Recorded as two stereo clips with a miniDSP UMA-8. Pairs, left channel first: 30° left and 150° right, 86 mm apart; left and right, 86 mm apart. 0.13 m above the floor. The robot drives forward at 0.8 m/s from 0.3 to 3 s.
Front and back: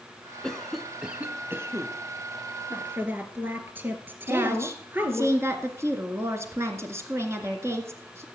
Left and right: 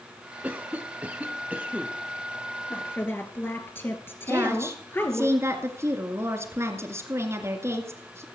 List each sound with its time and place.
0.4 s a cough: 40° right, 1.2 m; by 1.9 s 155° right, 1.4 m
2.7 s a woman speaking: 145° left, 2.5 m; by 5.3 s 150° left, 2.5 m
4.3 s a woman speaking: 120° right, 2 m